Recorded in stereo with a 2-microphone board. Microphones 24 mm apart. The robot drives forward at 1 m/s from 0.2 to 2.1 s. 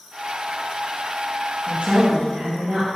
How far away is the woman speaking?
About 2.5 m.